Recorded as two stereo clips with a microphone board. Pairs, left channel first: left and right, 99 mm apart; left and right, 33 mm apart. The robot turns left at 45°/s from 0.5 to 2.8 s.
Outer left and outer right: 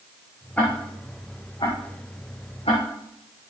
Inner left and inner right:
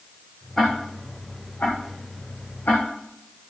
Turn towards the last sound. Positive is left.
turn(degrees=65)  # may be behind; listen again after turning